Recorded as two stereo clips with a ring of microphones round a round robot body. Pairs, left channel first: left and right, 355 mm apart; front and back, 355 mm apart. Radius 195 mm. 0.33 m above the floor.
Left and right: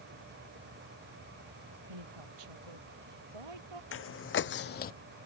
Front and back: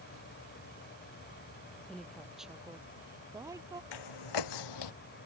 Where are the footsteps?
35° left; by 4.9 s 25° left.